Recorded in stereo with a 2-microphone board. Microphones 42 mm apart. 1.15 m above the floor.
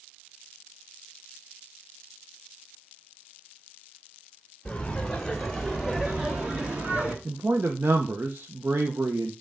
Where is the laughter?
25° left (ahead or behind), 1.8 m; by 7.2 s 40° right (ahead or behind), 2 m.